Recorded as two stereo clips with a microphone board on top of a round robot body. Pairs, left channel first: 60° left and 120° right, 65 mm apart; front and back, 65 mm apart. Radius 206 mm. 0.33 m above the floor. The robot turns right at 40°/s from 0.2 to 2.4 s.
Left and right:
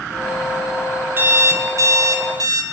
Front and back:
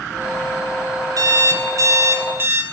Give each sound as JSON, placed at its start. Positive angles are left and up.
{"t": 1.2, "sound": "an alarm clock", "azimuth_deg": -175, "distance_m": 0.8}